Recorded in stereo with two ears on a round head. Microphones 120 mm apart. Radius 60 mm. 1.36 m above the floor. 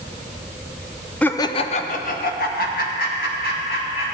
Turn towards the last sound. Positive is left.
turn(degrees=85)